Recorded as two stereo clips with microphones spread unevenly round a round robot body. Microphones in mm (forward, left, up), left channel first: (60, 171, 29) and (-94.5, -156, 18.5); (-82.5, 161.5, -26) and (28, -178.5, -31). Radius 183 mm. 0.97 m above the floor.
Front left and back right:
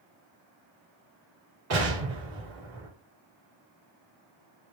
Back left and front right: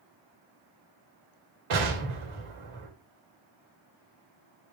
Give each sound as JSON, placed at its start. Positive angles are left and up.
{"t": 1.7, "sound": "an explosion", "azimuth_deg": -65, "distance_m": 4.0}